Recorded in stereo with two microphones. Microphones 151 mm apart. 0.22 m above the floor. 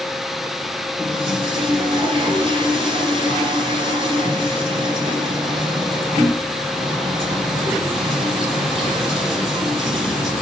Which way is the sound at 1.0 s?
35° right (ahead or behind).